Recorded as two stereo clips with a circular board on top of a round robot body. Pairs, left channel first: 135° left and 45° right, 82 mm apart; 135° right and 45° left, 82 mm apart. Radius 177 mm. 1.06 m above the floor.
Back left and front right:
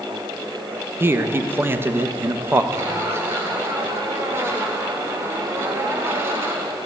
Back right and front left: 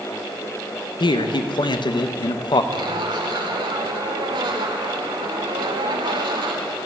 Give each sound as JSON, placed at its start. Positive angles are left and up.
{"t": 1.0, "sound": "a man speaking", "azimuth_deg": -110, "distance_m": 1.2}
{"t": 2.7, "sound": "a zipper", "azimuth_deg": 20, "distance_m": 1.2}